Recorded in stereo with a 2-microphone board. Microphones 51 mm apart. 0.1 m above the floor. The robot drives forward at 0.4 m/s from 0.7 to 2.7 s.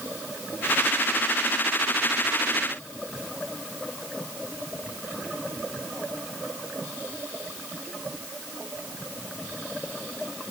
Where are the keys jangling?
I don't hear keys jangling.